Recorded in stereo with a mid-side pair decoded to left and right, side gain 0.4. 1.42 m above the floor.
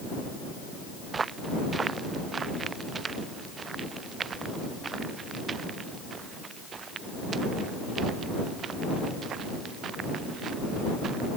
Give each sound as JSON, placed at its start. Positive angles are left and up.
{"t": 1.1, "sound": "footsteps", "azimuth_deg": -40}